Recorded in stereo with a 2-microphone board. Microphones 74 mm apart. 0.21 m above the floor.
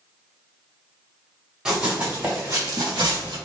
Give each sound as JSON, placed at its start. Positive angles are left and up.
{"t": 1.6, "sound": "running footsteps", "side_deg": -10, "distance_m": 1.3}